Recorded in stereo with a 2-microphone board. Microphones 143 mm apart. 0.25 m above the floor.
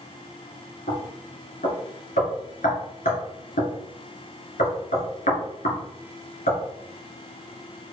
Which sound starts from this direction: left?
Knocking, at 0.9 s.